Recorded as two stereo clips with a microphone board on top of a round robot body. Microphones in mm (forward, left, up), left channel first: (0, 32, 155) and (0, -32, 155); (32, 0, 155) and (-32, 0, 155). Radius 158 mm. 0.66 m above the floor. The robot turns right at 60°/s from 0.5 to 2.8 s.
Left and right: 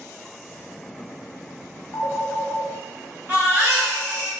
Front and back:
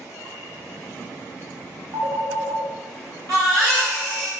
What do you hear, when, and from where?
1.9 s a phone ringing: 145° left, 0.7 m; by 4.3 s 160° right, 0.7 m
3.3 s a baby crying: 150° right, 1.1 m